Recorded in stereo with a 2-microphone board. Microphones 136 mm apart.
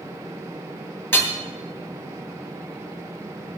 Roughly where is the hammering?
Centre.